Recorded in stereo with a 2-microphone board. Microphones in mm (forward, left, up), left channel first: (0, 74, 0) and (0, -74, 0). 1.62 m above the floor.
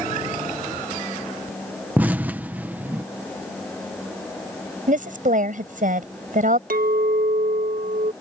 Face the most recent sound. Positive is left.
turn(degrees=-70)  # may be behind; listen again after turning